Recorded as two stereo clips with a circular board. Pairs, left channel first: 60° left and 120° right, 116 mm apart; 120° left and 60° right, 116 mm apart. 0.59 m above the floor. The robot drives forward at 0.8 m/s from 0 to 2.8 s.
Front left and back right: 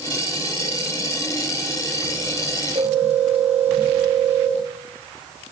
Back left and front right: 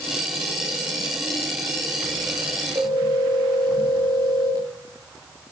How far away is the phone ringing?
About 9.5 m.